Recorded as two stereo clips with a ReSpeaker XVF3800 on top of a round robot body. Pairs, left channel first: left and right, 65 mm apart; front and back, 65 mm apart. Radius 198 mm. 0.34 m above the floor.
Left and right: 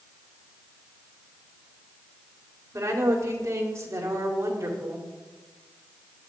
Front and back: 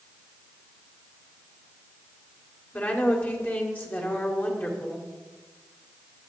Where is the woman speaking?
60° right, 2.5 m.